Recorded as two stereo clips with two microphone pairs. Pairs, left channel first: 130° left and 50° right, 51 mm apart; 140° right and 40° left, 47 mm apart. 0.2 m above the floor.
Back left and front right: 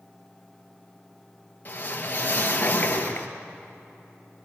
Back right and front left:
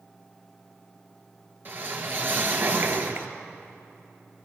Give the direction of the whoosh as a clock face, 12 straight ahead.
9 o'clock.